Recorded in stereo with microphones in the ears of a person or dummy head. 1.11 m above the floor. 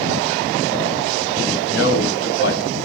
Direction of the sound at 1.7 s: 75° left (ahead or behind).